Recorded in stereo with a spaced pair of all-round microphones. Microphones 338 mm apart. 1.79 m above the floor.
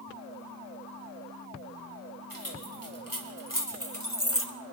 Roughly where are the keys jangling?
Left.